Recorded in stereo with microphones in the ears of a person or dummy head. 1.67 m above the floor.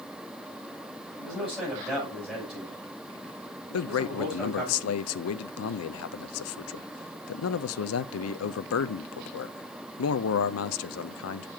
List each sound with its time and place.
1.2 s a man speaking: centre (ahead or behind), 7 m
3.7 s a man speaking: 80° left, 0.6 m